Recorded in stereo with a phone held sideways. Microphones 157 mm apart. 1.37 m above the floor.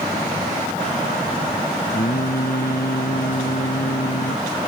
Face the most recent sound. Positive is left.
turn(degrees=70)  # may be behind; listen again after turning